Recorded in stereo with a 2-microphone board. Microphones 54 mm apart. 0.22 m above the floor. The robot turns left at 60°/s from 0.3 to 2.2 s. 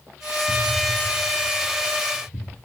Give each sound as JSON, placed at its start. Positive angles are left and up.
{"t": 0.5, "sound": "an explosion", "side_deg": -45, "distance_m": 0.8}